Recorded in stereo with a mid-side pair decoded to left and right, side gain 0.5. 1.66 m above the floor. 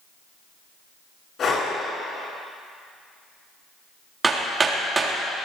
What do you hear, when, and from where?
1.4 s breathing: 50° left, 7 m
4.2 s hammering: 25° right, 3 m